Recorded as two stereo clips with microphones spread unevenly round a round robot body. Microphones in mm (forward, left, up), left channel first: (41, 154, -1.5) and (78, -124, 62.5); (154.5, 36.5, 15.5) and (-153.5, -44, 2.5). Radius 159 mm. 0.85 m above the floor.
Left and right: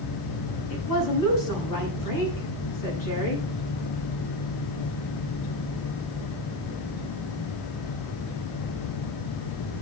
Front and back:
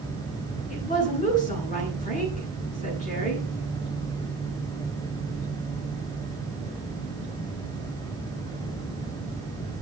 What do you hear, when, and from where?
0.7 s a woman speaking: 80° left, 9.5 m